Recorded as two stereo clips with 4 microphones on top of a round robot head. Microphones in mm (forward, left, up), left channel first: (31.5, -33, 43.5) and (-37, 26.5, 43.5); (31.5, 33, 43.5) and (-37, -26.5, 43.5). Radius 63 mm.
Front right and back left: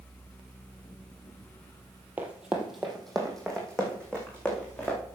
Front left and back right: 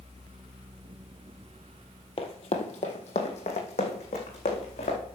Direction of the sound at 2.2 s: 65° left.